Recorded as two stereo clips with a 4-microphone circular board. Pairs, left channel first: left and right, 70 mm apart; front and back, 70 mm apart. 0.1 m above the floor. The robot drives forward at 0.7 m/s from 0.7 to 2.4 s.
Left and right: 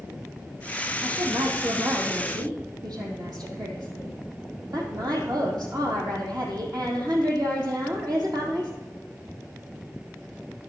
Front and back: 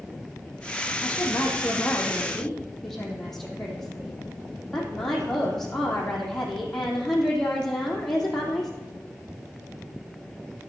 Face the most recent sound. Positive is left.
turn(degrees=-85)